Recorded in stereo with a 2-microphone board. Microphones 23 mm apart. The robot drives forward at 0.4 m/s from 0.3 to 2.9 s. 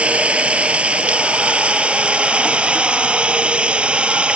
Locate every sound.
0.0 s running water: 65° right (ahead or behind); by 4.4 s 55° right (ahead or behind)